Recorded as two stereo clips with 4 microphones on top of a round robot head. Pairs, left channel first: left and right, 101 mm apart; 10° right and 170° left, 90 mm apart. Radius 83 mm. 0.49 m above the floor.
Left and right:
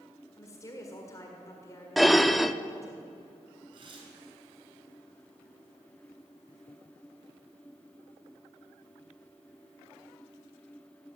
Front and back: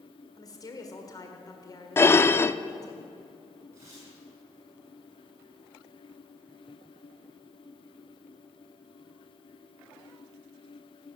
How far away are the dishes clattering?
About 0.6 m.